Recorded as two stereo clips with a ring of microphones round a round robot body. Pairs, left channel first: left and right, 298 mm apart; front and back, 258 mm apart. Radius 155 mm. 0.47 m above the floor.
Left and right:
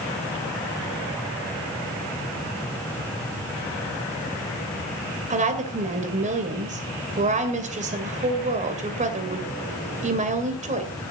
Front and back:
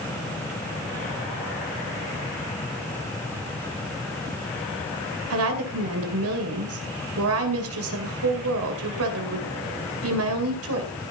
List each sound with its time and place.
5.3 s a woman speaking: 155° right, 2.5 m